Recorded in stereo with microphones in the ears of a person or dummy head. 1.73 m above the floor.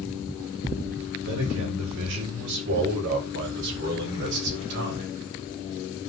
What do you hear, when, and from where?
1.2 s a man speaking: 65° right (ahead or behind), 8 m; by 5.1 s 60° right (ahead or behind), 5 m